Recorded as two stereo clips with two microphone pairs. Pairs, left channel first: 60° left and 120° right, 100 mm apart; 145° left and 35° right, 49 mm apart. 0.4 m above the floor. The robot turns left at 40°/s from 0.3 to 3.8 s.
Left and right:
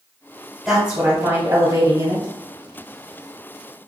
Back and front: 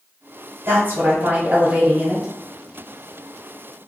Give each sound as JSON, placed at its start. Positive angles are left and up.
{"t": 0.7, "sound": "a woman speaking", "azimuth_deg": -30, "distance_m": 1.1}